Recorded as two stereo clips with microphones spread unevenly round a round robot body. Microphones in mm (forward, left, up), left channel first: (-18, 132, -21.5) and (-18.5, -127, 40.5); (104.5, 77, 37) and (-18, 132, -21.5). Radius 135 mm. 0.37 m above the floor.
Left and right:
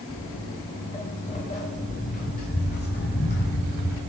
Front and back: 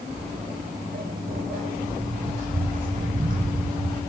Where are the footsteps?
165° left, 9 m; by 4.0 s 140° left, 11 m.